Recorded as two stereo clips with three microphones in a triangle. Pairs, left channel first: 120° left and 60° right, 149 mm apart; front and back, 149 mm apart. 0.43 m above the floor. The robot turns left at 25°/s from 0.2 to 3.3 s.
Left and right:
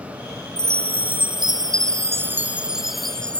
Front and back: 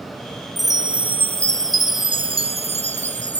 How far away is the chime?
About 0.5 m.